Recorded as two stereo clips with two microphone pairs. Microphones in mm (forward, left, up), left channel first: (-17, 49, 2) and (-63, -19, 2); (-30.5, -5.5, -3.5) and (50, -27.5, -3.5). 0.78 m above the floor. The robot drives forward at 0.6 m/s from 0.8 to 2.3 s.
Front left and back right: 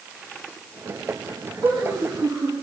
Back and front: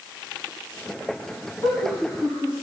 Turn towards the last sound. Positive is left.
turn(degrees=-160)